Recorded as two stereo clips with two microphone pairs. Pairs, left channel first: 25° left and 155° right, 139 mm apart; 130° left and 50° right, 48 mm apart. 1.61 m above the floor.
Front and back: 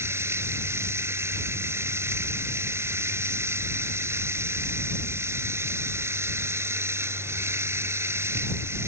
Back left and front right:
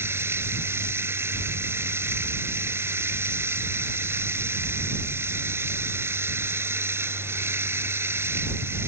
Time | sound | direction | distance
0.0 | running water | 80° right | ?